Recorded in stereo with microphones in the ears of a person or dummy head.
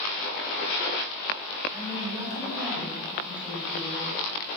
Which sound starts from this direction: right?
A woman speaking, at 1.7 s.